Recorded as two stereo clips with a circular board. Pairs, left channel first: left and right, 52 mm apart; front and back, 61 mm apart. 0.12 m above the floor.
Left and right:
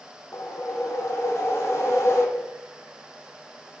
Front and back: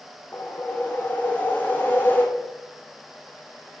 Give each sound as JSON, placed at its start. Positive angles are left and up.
{"t": 0.3, "sound": "a whoosh", "azimuth_deg": 60, "distance_m": 1.6}